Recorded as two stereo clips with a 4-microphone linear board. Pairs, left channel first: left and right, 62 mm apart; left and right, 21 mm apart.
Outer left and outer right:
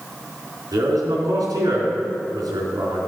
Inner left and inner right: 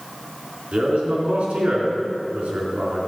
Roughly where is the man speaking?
Right.